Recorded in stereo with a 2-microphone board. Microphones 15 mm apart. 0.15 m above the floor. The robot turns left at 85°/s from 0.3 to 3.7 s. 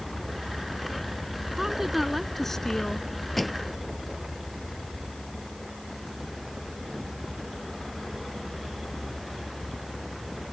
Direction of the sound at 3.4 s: 10° left (ahead or behind).